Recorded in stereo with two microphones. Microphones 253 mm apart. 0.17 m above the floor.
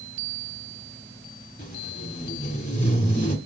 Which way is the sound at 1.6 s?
30° left (ahead or behind).